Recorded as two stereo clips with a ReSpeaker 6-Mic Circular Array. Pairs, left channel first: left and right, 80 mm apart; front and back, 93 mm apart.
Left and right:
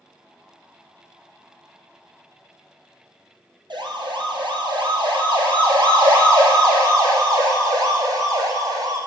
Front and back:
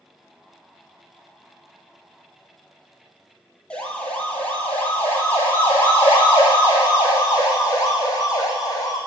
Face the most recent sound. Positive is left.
turn(degrees=-50)